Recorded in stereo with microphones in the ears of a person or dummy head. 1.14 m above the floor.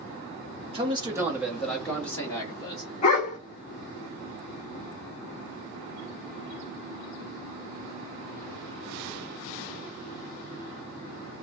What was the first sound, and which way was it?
A man speaking, 30° right (ahead or behind).